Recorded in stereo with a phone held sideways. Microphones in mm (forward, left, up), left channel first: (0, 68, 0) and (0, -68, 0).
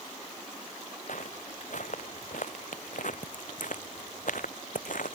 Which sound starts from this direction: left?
Footsteps, at 1.1 s.